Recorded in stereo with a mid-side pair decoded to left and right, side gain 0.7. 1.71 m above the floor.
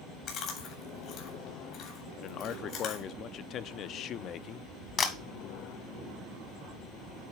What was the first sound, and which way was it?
Chewing, 50° left.